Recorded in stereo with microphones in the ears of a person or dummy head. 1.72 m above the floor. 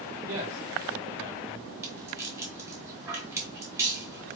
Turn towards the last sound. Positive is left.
turn(degrees=-15)  # may be behind; listen again after turning